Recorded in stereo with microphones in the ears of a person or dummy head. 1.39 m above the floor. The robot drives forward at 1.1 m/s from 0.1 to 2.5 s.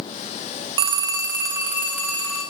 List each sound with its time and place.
0.8 s a phone ringing: 30° right (ahead or behind), 0.5 m; by 2.4 s 5° right (ahead or behind), 2 m